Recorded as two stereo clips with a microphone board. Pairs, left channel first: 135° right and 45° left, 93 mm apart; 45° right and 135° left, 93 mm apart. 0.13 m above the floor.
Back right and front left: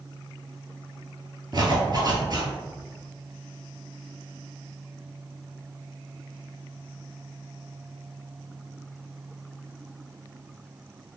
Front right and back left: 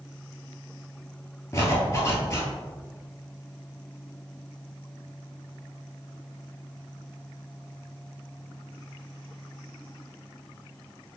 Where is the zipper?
10° left, 0.9 m.